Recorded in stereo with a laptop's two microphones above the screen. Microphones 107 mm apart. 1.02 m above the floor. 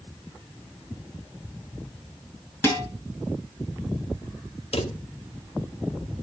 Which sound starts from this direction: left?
A drawer, at 4.7 s.